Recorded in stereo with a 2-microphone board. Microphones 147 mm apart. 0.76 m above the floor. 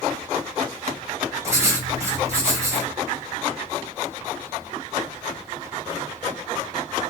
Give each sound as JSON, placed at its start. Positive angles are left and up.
{"t": 1.4, "sound": "writing", "side_deg": -20, "distance_m": 2.0}